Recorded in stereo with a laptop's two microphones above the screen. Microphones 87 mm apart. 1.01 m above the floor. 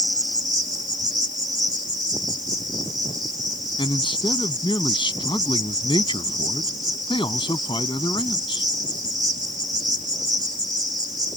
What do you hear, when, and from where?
0.0 s an insect: 50° right (ahead or behind)
3.8 s a man speaking: 70° left (ahead or behind)